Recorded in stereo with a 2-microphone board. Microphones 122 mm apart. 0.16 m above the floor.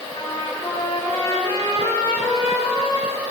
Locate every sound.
0.1 s a trumpet: 30° left (ahead or behind), 5.5 m